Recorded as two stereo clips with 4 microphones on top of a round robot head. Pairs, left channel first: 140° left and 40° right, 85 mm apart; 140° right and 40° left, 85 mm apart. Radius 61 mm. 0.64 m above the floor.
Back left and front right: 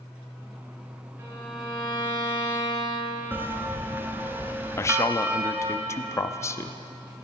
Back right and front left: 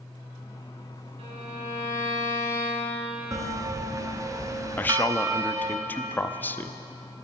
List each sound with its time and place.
1.2 s a violin: 25° left, 5 m
3.3 s a bell: 15° left, 1.6 m
4.8 s a man speaking: 165° left, 0.7 m